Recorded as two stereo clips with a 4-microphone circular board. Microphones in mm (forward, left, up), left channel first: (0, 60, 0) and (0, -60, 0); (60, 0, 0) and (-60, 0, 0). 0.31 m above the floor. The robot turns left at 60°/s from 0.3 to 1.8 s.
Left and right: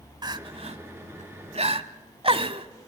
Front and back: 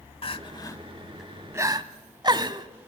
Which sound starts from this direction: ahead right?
Crying, at 0.2 s.